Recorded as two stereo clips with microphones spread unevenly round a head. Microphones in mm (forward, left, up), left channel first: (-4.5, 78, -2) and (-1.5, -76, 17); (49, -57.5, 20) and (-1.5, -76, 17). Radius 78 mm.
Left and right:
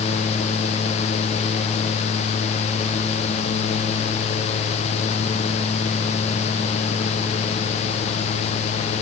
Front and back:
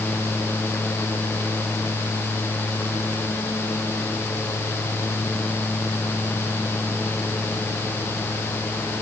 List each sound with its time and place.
Only background noise.